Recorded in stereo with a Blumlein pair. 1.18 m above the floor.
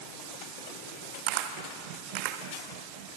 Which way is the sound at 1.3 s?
40° right.